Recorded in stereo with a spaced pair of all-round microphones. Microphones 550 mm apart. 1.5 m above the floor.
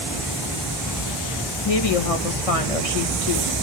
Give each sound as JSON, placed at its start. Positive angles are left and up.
{"t": 1.6, "sound": "a woman speaking", "side_deg": 85, "distance_m": 2.0}